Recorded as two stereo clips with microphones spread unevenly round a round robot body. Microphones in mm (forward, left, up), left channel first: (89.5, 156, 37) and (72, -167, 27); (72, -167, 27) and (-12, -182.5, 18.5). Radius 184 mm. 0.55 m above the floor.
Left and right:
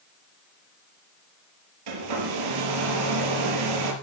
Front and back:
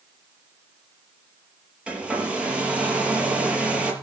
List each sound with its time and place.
1.9 s a hair dryer: 90° right, 4.5 m